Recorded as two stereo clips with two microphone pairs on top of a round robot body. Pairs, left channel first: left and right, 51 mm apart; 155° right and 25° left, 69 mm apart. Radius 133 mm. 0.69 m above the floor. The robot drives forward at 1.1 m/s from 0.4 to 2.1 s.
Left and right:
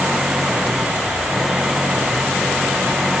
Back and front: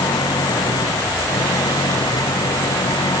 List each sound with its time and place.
0.0 s an engine running: 165° right; by 3.2 s 170° right